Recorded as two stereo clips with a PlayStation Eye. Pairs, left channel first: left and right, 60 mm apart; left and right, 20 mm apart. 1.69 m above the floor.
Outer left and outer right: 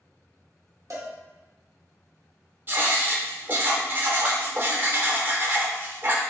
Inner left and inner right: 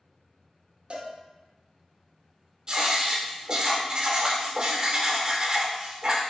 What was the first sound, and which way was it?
A cowbell, 60° right (ahead or behind).